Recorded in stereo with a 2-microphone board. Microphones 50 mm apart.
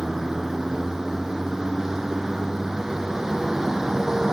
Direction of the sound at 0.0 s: 10° right (ahead or behind).